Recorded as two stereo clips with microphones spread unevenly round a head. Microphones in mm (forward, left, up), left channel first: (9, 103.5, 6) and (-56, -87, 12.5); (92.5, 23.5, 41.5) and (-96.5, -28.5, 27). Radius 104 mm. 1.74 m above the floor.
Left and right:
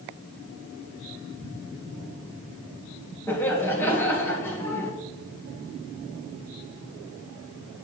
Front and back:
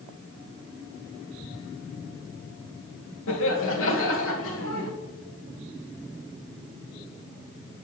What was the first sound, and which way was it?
Laughter, 10° right.